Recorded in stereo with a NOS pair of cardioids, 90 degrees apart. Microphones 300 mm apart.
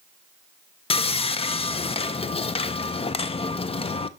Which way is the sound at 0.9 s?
20° left.